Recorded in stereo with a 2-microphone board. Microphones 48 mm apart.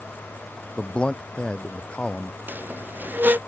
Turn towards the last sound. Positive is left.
turn(degrees=-45)  # may be behind; listen again after turning